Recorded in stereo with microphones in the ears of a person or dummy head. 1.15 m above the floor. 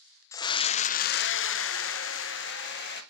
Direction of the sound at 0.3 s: 10° left (ahead or behind).